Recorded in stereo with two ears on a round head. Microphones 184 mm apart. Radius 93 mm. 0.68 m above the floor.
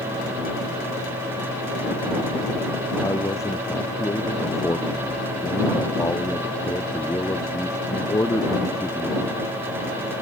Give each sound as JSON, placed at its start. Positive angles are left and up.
{"t": 3.0, "sound": "a man speaking", "side_deg": 15}